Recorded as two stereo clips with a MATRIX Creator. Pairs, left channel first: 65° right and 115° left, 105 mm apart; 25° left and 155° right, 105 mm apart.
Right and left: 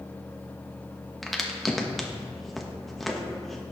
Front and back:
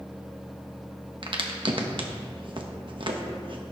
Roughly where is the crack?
Behind right.